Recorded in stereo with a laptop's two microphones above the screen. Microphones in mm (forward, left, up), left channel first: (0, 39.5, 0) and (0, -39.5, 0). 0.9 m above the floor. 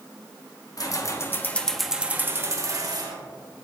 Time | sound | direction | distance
0.8 | keys jangling | 50° left (ahead or behind) | 1.0 m